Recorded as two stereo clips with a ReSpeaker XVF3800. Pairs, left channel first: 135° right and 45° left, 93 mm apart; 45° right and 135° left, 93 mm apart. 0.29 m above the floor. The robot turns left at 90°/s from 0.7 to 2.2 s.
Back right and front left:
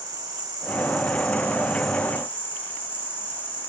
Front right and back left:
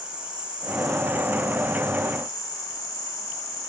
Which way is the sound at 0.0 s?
60° left.